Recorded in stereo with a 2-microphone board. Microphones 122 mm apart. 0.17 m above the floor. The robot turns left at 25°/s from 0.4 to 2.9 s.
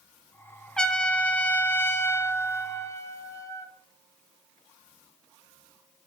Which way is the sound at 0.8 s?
5° left (ahead or behind).